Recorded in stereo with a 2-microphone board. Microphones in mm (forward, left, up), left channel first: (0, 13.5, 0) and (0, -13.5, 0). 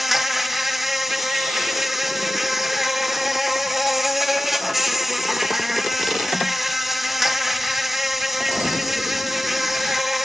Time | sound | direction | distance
0.0 | an insect | 10° right (ahead or behind) | 0.8 m